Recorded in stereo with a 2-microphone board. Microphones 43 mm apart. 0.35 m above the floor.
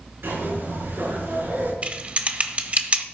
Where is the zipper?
70° right (ahead or behind), 5 m.